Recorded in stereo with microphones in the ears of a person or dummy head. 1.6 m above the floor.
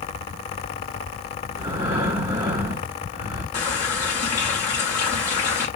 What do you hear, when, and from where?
1.5 s breathing: 20° right (ahead or behind), 1.3 m
3.5 s a running tap: 35° left (ahead or behind), 0.9 m